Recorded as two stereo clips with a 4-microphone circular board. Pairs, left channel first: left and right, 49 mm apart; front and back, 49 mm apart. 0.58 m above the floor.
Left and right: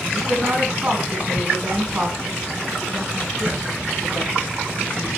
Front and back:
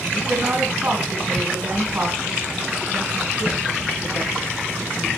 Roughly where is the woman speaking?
Behind right.